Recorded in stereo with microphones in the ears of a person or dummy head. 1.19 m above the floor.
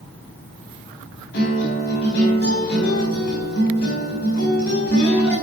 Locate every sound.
1.3 s a guitar: 60° left (ahead or behind), 5.5 m